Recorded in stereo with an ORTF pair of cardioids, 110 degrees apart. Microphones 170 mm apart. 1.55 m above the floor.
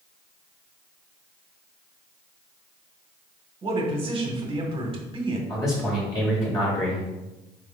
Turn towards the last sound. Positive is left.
turn(degrees=20)